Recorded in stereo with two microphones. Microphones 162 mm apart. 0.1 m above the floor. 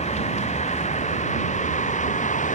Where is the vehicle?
45° left (ahead or behind); by 2.5 s 50° left (ahead or behind).